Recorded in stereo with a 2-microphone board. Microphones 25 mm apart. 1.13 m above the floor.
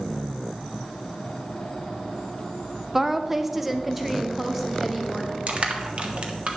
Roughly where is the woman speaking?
Centre.